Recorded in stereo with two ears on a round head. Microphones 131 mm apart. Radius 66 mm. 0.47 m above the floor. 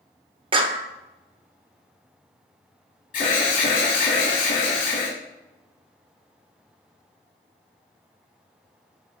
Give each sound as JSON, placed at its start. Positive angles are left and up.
{"t": 0.5, "sound": "a clap", "side_deg": -35, "distance_m": 0.8}
{"t": 3.1, "sound": "an alarm", "side_deg": 60, "distance_m": 3.5}